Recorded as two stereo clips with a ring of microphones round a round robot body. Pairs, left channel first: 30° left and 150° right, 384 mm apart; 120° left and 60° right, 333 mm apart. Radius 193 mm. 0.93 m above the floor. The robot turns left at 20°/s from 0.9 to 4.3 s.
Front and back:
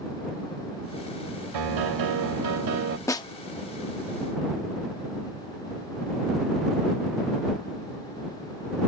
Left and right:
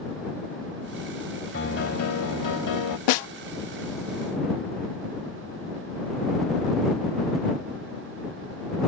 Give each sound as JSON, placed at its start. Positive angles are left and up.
{"t": 1.5, "sound": "a piano", "azimuth_deg": -175}
{"t": 3.1, "sound": "a snare drum", "azimuth_deg": 110}